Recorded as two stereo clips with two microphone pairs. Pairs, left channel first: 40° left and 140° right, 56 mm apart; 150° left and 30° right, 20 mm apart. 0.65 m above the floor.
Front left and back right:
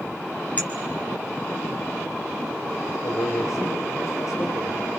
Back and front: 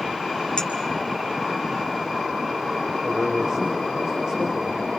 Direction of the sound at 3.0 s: 25° left.